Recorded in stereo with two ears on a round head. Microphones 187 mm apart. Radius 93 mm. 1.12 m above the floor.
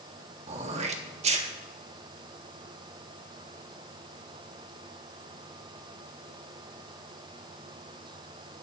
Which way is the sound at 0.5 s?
30° right (ahead or behind).